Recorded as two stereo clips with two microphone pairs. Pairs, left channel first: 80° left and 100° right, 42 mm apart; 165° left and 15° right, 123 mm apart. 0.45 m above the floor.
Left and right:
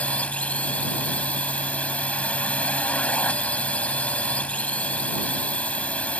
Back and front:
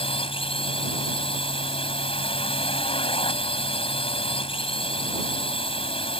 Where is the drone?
135° left.